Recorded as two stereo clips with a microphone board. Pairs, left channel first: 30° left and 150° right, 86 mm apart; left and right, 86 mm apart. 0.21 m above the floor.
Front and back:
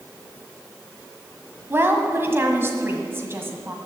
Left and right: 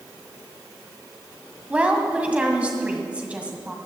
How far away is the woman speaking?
About 1.7 m.